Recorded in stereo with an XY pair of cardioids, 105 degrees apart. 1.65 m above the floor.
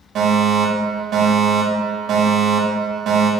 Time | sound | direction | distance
0.1 | a fire alarm | 60° right | 5 m